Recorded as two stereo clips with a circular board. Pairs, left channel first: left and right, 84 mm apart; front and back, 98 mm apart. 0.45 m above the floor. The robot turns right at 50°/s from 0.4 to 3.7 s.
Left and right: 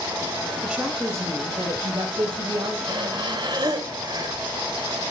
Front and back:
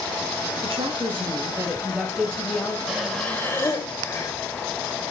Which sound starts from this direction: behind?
A woman speaking, at 0.6 s.